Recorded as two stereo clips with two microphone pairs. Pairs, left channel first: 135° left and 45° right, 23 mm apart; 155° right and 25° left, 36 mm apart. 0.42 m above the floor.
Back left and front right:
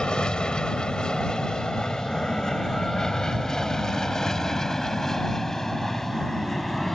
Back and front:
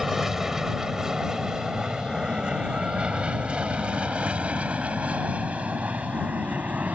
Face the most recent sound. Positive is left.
turn(degrees=60)